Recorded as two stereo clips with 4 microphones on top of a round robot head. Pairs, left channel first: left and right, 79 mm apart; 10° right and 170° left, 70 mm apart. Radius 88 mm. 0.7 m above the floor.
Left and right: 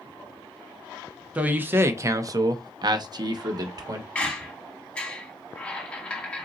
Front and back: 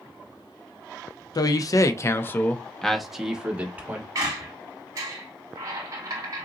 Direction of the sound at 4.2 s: 155° left.